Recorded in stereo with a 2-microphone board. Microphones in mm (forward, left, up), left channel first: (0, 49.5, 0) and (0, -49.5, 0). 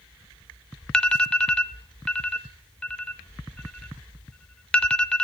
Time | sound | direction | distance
0.9 | an alarm | 10° left (ahead or behind) | 0.5 m